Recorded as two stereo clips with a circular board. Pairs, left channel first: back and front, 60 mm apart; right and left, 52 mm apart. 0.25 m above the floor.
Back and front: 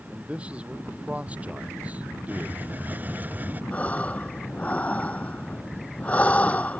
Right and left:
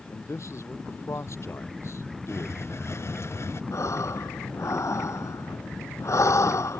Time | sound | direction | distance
0.1 | a man speaking | 70° right | ?
2.3 | a hiss | 60° right | ?
3.7 | breathing | 110° right | ?